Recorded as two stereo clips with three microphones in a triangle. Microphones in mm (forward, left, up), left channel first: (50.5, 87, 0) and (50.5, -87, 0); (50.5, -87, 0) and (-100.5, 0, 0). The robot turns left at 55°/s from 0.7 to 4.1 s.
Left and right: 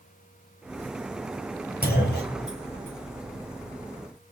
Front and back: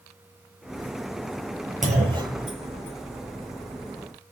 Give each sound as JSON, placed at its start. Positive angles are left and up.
{"t": 1.8, "sound": "a clunk", "azimuth_deg": 110, "distance_m": 4.0}